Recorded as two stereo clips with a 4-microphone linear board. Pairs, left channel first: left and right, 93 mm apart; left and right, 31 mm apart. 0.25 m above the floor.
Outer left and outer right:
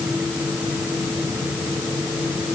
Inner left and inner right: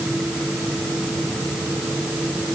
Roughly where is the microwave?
I don't hear a microwave.